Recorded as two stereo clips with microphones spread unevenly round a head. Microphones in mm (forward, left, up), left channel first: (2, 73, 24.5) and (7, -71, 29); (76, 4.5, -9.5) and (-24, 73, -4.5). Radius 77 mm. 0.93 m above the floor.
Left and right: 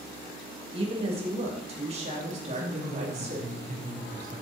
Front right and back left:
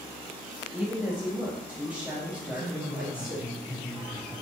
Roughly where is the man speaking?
Behind right.